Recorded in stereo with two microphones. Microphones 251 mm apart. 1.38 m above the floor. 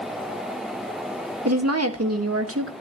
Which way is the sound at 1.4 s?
80° right.